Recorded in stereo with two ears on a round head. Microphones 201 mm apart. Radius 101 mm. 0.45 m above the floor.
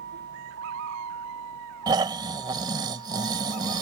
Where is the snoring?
20° right (ahead or behind).